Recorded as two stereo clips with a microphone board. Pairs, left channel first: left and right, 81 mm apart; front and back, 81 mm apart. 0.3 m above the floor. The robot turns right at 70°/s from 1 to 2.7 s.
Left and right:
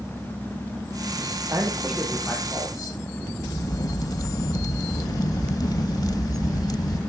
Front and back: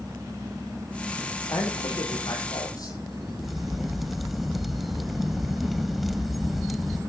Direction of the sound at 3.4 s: 95° left.